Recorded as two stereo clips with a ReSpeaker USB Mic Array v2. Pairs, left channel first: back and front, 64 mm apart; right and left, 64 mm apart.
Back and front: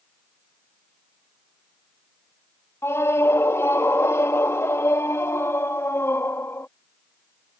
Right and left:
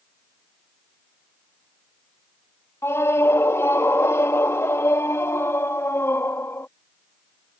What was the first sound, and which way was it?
A scream, 135° right.